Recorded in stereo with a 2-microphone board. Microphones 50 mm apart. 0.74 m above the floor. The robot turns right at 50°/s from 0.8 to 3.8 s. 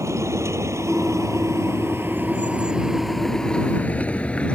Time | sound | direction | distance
0.0 | a vehicle | 75° right (ahead or behind) | ?